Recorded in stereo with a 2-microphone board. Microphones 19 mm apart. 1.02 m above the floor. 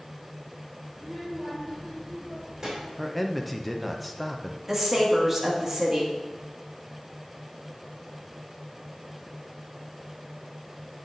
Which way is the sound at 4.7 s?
20° right (ahead or behind).